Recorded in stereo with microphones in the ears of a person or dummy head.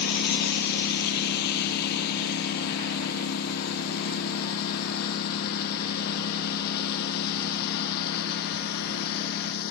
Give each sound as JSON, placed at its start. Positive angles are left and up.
{"t": 0.0, "sound": "a lawn mower", "side_deg": 55}